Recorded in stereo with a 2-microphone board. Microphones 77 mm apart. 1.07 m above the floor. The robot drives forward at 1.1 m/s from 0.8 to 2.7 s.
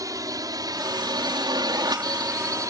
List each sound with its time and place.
0.0 s a drone: 50° right (ahead or behind); by 2.7 s 45° right (ahead or behind)